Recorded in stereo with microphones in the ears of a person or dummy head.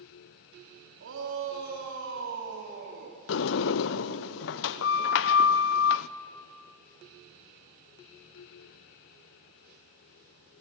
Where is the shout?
65° right (ahead or behind), 4.5 m; by 3.2 s 50° right (ahead or behind), 4 m.